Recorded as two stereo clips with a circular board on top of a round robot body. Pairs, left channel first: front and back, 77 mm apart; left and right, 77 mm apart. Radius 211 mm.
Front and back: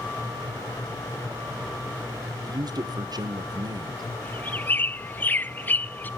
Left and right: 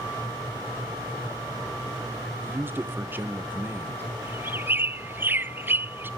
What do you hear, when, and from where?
2.4 s a man speaking: 150° right, 1.8 m
4.2 s a bird: 50° right, 0.5 m